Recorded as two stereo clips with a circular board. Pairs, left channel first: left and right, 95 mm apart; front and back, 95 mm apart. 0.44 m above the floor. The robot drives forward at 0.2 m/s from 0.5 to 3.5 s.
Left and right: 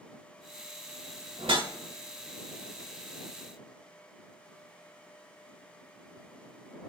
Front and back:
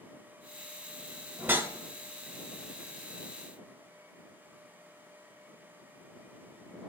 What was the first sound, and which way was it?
A whoosh, 110° right.